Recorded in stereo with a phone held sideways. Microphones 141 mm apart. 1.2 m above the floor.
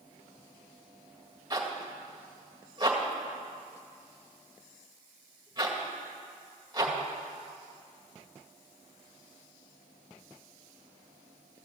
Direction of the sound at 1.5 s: 25° right (ahead or behind).